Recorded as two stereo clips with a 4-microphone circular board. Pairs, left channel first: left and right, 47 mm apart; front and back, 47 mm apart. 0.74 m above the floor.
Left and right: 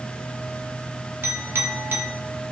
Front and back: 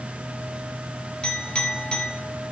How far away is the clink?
About 1.5 m.